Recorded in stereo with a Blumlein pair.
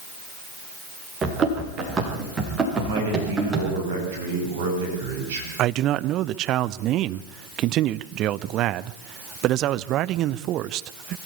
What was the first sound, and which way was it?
Running footsteps, 20° right.